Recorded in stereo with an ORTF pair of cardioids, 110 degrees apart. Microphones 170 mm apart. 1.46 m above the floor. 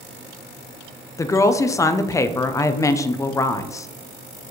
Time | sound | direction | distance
1.2 | a woman speaking | 20° left | 0.5 m